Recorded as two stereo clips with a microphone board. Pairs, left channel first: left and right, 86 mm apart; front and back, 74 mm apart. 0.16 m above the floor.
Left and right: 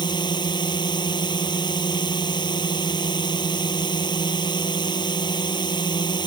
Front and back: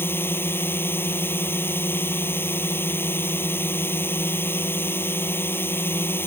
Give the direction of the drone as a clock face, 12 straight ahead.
10 o'clock.